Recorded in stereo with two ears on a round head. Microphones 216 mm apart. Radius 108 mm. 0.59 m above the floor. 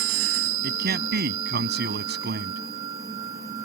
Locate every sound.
0.6 s a man speaking: 40° right (ahead or behind)